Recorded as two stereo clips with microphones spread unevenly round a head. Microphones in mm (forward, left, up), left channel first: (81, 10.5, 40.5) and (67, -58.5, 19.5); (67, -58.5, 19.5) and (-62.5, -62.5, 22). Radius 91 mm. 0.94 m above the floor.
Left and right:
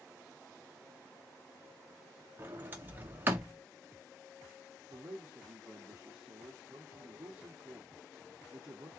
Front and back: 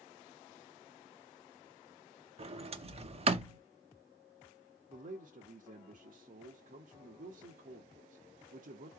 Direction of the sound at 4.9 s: 160° right.